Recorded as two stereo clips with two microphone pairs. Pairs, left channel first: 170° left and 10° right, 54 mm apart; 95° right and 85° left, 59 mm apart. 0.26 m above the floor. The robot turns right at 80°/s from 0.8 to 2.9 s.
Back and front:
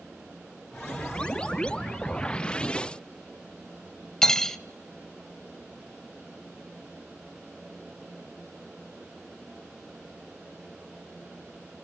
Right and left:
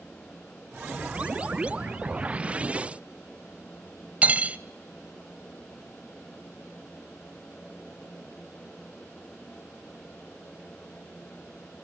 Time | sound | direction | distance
4.2 | cutlery clinking | 105° left | 0.5 m